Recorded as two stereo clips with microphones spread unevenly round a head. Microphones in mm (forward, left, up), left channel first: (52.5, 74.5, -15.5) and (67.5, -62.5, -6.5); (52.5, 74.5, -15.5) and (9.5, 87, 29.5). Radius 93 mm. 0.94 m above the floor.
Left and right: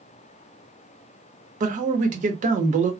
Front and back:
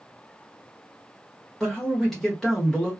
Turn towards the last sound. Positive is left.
turn(degrees=-60)